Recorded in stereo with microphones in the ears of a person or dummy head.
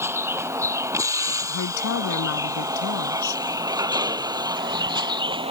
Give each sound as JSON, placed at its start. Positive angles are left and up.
{"t": 0.0, "sound": "a vehicle", "side_deg": -10}
{"t": 1.5, "sound": "a woman speaking", "side_deg": 85}